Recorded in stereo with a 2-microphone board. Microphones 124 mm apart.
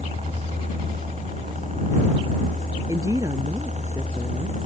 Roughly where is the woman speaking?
Right.